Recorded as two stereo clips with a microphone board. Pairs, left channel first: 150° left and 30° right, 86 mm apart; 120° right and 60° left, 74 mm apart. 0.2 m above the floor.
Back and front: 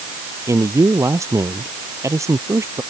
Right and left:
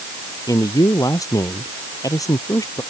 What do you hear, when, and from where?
0.5 s a man speaking: 85° right